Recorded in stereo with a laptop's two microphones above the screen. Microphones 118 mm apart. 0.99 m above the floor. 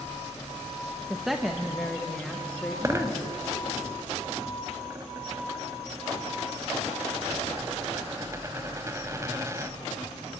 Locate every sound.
1.1 s a woman speaking: 5° right (ahead or behind), 0.7 m; by 3.8 s 10° left (ahead or behind), 2.5 m
2.8 s a dropped coin: 25° right (ahead or behind), 0.8 m